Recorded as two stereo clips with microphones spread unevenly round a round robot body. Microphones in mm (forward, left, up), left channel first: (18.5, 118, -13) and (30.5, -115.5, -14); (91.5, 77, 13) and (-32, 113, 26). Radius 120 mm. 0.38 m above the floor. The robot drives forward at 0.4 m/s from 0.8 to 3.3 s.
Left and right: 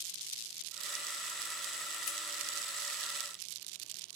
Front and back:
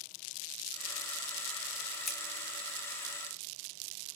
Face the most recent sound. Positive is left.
turn(degrees=85)